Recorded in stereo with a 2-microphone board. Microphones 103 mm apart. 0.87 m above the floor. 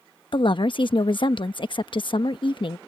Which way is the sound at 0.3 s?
55° left (ahead or behind).